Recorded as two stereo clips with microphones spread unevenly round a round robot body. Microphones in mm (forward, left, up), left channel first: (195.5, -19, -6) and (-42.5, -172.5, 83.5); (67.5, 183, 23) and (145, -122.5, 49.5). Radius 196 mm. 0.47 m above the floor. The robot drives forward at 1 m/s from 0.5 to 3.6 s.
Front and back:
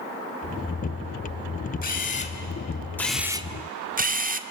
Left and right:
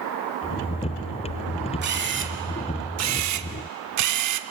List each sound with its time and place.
1.8 s a camera shutter: 20° right, 2 m; by 4.4 s 75° right, 0.9 m